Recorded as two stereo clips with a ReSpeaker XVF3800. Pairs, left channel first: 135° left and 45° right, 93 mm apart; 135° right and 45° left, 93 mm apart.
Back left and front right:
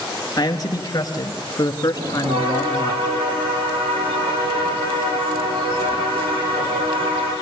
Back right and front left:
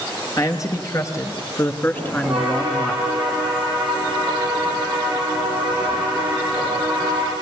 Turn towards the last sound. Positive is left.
turn(degrees=-35)